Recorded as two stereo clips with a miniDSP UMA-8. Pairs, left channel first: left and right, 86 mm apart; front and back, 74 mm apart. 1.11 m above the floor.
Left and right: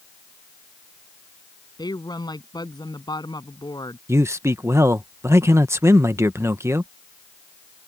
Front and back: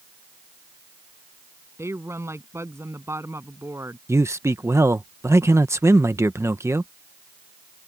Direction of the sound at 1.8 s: 125° left.